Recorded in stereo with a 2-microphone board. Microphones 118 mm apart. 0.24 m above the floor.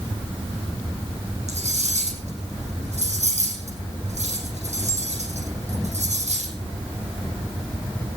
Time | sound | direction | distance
1.5 | cutlery clinking | 75° right (ahead or behind) | 6.5 m